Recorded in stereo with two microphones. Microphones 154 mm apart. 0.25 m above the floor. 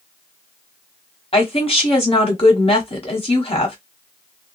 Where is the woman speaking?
40° left (ahead or behind), 1.3 m.